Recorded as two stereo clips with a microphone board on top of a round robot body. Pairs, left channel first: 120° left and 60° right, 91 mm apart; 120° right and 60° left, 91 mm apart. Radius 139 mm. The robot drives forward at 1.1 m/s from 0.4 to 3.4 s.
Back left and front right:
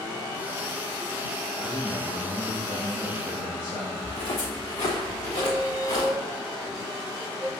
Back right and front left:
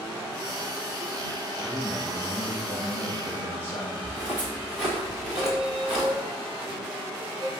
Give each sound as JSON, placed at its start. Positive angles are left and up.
{"t": 1.6, "sound": "a man speaking", "azimuth_deg": 160, "distance_m": 2.5}
{"t": 4.0, "sound": "footsteps", "azimuth_deg": 140, "distance_m": 2.5}
{"t": 5.4, "sound": "a squeak", "azimuth_deg": 75, "distance_m": 1.0}